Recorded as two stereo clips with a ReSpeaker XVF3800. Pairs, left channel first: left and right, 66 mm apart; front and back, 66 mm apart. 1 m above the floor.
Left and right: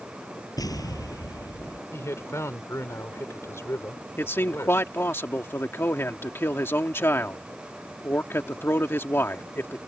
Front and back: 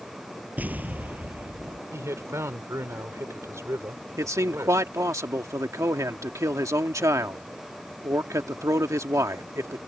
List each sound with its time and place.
0.6 s an explosion: 115° left
1.9 s a man speaking: 135° left
4.2 s a man speaking: 145° left